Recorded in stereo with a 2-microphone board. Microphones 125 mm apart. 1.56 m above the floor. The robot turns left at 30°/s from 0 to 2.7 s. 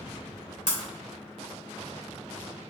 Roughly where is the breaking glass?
Left.